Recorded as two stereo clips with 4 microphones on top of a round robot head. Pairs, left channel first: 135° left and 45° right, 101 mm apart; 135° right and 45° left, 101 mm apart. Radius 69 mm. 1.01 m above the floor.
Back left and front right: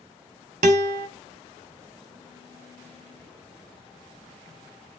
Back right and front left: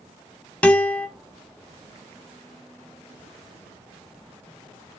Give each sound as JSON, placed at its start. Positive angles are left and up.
{"t": 0.6, "sound": "a guitar", "azimuth_deg": -60, "distance_m": 0.9}